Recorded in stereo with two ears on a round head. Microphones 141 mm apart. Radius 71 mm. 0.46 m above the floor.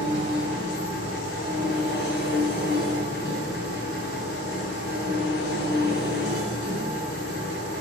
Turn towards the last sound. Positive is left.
turn(degrees=70)  # may be behind; listen again after turning